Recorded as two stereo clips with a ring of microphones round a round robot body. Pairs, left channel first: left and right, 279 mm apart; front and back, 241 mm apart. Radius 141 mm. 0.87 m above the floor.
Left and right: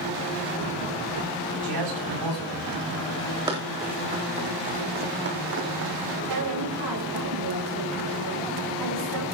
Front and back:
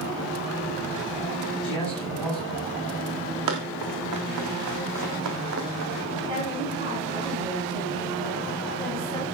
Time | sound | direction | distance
1.6 | a man speaking | 85° right | 9 m
3.5 | running footsteps | 165° right | 3.5 m
6.2 | a woman speaking | 105° right | 8 m